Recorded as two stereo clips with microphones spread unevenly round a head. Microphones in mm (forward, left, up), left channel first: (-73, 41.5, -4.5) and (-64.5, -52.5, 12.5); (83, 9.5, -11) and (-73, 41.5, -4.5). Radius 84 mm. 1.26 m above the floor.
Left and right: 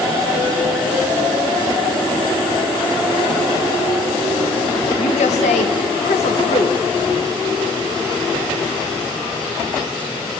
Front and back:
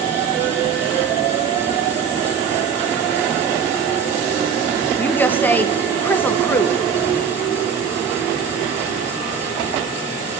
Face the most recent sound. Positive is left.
turn(degrees=65)